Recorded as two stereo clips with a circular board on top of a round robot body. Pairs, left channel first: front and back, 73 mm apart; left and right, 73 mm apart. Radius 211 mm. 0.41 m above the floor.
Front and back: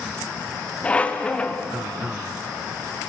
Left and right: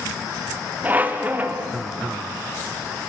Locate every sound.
0.8 s a squeak: 55° right, 0.7 m